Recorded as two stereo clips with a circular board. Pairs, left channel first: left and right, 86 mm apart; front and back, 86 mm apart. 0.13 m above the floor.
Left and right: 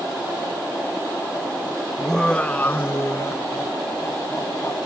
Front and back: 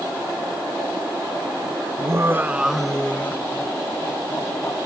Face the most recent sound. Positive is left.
turn(degrees=40)